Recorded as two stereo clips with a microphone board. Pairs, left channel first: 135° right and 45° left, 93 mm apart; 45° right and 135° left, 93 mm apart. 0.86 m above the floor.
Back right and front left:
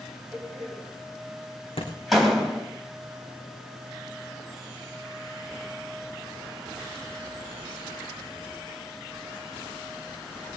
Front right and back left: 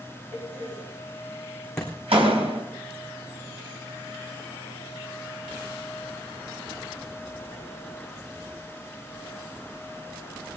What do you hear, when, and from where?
0.3 s a door slam: 135° left, 3 m
1.8 s a thud: 130° right, 3.5 m